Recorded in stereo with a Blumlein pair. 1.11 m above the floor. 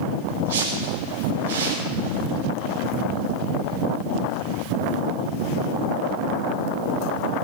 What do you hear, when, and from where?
0.5 s a whoosh: 60° right, 4.5 m